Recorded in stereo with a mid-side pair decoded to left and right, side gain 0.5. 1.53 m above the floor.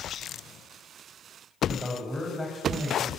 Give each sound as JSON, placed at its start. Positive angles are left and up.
{"t": 1.7, "sound": "a man speaking", "azimuth_deg": 10, "distance_m": 8.0}